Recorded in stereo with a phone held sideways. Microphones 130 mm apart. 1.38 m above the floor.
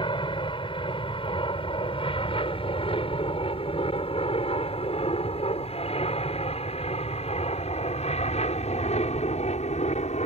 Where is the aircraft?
40° left (ahead or behind); by 10.3 s 60° left (ahead or behind).